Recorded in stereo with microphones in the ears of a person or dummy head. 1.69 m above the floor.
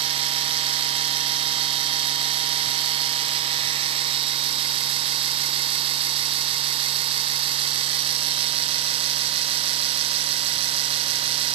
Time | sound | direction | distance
0.0 | a machine running | 30° right (ahead or behind) | 0.7 m